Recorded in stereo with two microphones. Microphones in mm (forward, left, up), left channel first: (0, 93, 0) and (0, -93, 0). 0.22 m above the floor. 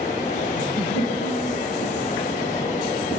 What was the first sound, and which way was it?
A giggle, 80° left.